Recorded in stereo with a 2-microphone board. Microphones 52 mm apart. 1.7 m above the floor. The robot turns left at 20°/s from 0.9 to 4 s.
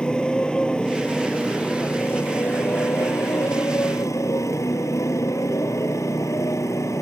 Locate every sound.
0.0 s a motorcycle: 165° left; by 7.0 s 100° left